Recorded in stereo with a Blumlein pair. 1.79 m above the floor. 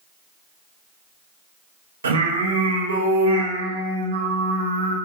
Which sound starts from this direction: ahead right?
Singing, at 2.0 s.